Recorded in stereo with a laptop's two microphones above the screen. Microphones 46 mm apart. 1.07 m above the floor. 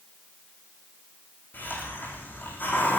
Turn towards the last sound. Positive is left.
turn(degrees=45)  # may be behind; listen again after turning